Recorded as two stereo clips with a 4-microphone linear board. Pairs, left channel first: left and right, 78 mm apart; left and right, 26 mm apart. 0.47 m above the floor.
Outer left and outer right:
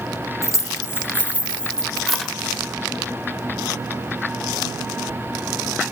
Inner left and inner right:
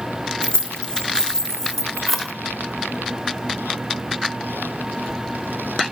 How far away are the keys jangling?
About 1.0 m.